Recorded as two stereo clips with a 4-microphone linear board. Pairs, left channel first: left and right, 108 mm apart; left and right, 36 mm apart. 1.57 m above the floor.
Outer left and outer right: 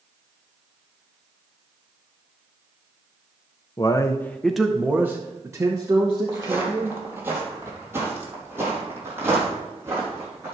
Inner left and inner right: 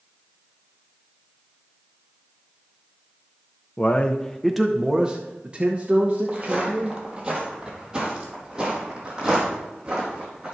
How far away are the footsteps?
About 2 m.